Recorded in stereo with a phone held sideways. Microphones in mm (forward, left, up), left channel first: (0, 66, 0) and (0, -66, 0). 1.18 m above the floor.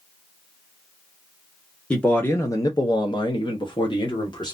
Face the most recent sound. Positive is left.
turn(degrees=30)  # may be behind; listen again after turning